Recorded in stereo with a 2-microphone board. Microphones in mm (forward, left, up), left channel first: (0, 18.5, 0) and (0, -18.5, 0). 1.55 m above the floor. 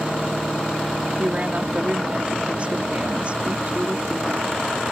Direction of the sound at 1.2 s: 35° right (ahead or behind).